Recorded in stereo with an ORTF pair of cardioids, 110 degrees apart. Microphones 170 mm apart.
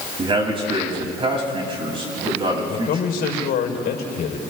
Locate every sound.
0.2 s a man speaking: 30° right, 7 m
2.7 s a man speaking: 60° left, 4 m